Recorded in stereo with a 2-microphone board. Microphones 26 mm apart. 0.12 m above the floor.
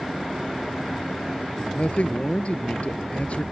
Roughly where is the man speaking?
Left.